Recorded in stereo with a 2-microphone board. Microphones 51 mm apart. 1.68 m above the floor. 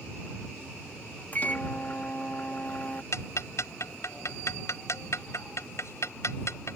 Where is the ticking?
70° left (ahead or behind).